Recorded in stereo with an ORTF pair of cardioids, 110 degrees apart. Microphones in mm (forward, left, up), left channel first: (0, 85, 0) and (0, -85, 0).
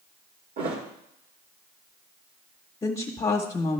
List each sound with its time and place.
0.6 s a thud: 70° right, 2.0 m
2.8 s a woman speaking: 25° left, 1.0 m